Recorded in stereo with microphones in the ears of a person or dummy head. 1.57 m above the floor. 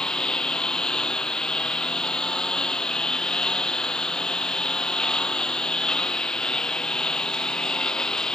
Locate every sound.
0.0 s a lawn mower: 5° left (ahead or behind)